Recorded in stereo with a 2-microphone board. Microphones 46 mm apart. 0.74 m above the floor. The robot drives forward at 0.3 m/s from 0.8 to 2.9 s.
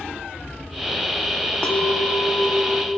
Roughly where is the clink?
Left.